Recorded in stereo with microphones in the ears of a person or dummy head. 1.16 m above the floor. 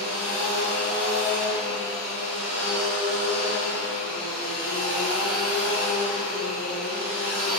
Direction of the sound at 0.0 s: 50° right (ahead or behind).